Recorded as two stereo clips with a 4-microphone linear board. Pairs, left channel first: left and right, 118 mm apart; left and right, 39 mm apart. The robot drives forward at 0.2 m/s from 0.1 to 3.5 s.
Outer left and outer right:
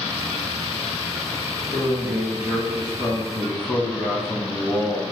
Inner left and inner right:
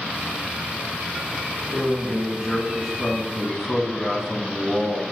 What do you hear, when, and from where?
1.7 s a man speaking: 10° right (ahead or behind), 2 m